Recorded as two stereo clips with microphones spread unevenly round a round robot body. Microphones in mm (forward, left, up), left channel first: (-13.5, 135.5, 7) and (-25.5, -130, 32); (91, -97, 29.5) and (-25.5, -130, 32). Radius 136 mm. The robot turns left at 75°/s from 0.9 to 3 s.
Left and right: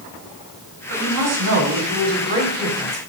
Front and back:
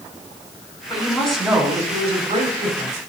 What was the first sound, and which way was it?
A woman speaking, 40° right.